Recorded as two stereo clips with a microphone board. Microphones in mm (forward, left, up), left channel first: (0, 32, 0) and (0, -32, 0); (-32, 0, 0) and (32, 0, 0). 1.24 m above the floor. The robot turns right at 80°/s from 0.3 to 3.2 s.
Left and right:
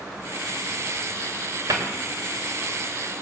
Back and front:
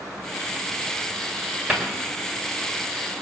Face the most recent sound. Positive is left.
turn(degrees=45)